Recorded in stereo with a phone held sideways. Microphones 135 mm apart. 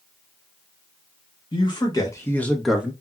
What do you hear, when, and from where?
1.5 s a man speaking: 35° left (ahead or behind), 1.4 m; by 2.9 s 15° right (ahead or behind), 0.8 m